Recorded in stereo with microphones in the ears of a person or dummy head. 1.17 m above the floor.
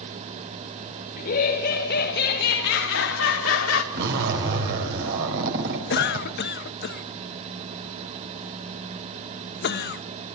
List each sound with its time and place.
1.2 s laughter: 50° left (ahead or behind), 5 m; by 3.8 s 80° left, 3.5 m
3.9 s a zipper: 70° right (ahead or behind), 4 m
5.9 s a cough: 60° left (ahead or behind), 0.8 m